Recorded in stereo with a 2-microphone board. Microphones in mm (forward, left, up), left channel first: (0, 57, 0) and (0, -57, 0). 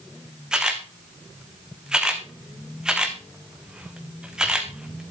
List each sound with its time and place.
0.5 s a camera shutter: 5° right (ahead or behind), 2.5 m